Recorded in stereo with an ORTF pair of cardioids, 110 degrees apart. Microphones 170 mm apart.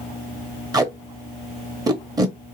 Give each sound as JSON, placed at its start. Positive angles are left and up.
{"t": 0.7, "sound": "tape being pulled", "azimuth_deg": -25, "distance_m": 1.0}